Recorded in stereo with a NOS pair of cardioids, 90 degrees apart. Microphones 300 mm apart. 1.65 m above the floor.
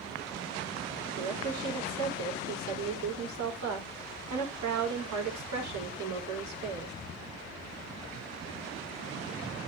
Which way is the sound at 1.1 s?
70° right.